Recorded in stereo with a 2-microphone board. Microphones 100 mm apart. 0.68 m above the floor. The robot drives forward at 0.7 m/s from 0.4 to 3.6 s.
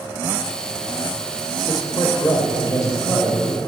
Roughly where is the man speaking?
Left.